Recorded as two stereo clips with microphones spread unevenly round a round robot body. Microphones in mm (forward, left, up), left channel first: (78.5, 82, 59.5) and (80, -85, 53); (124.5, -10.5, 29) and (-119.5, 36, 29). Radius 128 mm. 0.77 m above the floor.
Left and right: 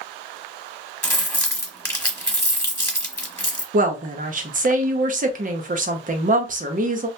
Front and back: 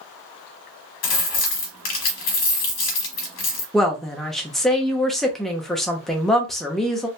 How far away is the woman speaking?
About 0.7 m.